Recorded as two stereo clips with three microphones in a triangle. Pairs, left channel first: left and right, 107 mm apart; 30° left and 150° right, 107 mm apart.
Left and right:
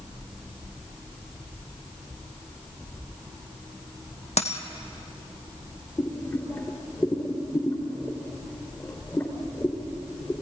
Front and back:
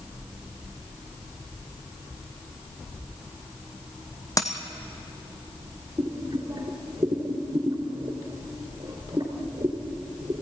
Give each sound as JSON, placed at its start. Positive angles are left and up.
{"t": 4.4, "sound": "a dropped coin", "azimuth_deg": 85, "distance_m": 1.8}
{"t": 6.0, "sound": "boiling", "azimuth_deg": 155, "distance_m": 3.5}